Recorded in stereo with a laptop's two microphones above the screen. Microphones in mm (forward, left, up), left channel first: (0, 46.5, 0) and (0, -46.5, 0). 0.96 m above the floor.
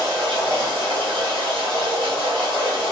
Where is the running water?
75° right (ahead or behind), 1.9 m.